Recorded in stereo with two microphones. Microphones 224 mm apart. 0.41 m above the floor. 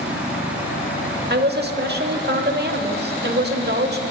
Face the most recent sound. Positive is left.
turn(degrees=-50)  # may be behind; listen again after turning